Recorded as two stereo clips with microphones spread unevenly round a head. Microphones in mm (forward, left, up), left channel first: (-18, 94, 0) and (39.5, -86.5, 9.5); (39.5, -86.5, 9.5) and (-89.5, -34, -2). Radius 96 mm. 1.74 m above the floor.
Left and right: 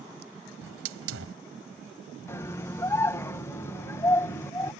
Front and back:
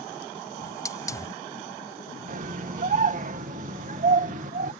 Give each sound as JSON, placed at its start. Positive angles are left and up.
{"t": 0.6, "sound": "a hiss", "azimuth_deg": -85}
{"t": 2.3, "sound": "a scream", "azimuth_deg": -175}